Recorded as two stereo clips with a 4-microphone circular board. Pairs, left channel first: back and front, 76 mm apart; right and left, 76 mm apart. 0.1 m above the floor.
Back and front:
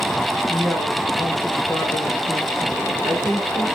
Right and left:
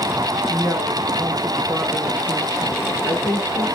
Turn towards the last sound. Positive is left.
turn(degrees=115)